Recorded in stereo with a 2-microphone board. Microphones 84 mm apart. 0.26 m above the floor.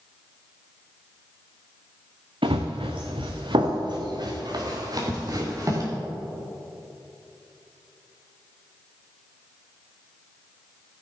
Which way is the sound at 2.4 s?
80° right.